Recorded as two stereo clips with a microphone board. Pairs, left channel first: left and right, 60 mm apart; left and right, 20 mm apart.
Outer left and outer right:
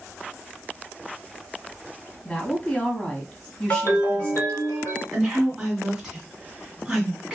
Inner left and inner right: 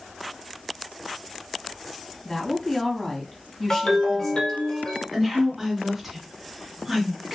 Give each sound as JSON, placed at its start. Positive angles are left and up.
{"t": 2.2, "sound": "a woman speaking", "side_deg": 25, "distance_m": 1.2}
{"t": 3.7, "sound": "a ringtone", "side_deg": 50, "distance_m": 1.9}
{"t": 5.1, "sound": "a woman speaking", "side_deg": -5, "distance_m": 1.9}